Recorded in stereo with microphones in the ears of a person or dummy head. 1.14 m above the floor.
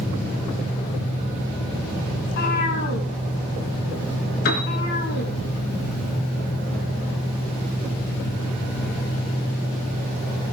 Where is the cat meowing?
60° left (ahead or behind), 5.5 m.